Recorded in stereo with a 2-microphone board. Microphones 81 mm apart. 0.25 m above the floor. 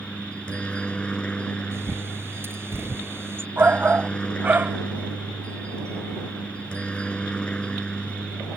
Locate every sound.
0.0 s a helicopter: 15° left (ahead or behind)
1.7 s a bird: 30° right (ahead or behind)
3.6 s a shout: 25° right (ahead or behind)